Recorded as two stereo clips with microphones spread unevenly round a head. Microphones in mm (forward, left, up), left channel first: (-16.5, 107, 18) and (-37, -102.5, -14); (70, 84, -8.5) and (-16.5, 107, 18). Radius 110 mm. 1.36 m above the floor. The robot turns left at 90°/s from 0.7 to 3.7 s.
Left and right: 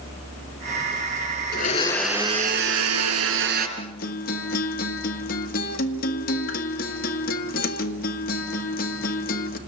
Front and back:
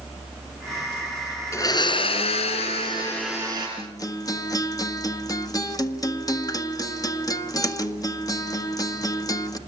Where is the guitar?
35° left, 1.6 m.